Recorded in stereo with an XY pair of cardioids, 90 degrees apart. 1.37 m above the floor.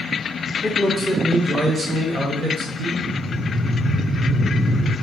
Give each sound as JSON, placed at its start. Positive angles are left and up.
{"t": 0.6, "sound": "a man speaking", "azimuth_deg": -10, "distance_m": 0.9}
{"t": 3.0, "sound": "breathing", "azimuth_deg": -50, "distance_m": 0.6}